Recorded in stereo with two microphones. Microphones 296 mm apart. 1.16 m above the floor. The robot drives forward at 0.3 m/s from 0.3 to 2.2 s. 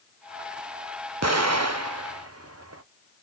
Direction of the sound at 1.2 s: 55° right (ahead or behind).